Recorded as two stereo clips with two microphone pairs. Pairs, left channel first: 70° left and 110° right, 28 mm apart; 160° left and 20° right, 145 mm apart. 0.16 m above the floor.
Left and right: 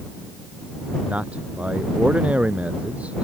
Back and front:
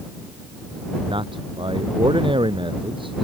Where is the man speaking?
75° right.